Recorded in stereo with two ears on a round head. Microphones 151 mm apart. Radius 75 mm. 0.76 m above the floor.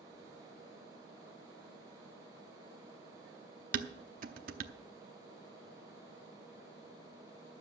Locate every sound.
3.7 s dishes clattering: 50° right (ahead or behind), 0.8 m